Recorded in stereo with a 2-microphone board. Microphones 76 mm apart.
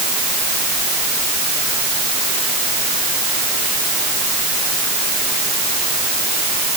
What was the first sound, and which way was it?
Only background noise.